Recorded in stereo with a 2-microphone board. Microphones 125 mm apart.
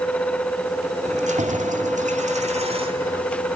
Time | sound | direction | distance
1.1 | keys jangling | 65° right (ahead or behind) | 2.5 m